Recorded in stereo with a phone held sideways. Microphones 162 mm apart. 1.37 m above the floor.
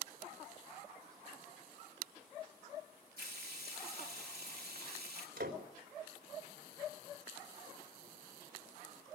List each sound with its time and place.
3.2 s frying: 75° right (ahead or behind), 3.5 m
5.4 s a door slam: 85° right, 3.5 m